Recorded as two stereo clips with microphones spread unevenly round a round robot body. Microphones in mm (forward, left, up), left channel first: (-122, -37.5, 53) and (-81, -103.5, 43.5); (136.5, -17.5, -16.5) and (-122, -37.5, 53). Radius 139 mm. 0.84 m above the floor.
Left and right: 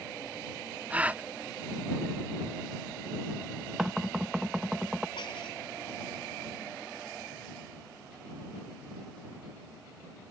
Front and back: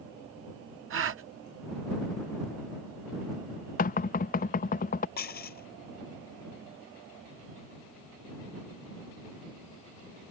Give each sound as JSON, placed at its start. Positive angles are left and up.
{"t": 0.9, "sound": "a gasp", "azimuth_deg": -130}
{"t": 3.8, "sound": "knocking", "azimuth_deg": 15}
{"t": 5.2, "sound": "dishes clattering", "azimuth_deg": 65}